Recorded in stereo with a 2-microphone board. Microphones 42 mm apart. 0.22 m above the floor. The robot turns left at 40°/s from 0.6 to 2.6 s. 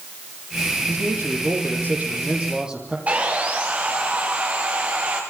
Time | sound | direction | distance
0.9 | a man speaking | 90° right | 8 m
3.1 | sawing | 35° right (ahead or behind) | 7.5 m